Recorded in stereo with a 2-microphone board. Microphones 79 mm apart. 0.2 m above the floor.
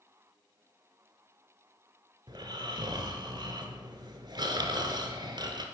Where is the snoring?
75° right (ahead or behind), 0.9 m.